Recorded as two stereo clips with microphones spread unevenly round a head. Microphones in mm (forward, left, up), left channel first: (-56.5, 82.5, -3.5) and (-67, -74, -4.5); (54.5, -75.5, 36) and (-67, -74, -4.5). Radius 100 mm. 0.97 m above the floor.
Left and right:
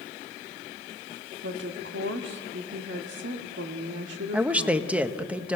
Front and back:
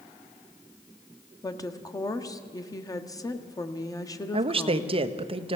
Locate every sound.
1.4 s a woman speaking: 65° right, 1.7 m
4.3 s a woman speaking: 175° right, 1.1 m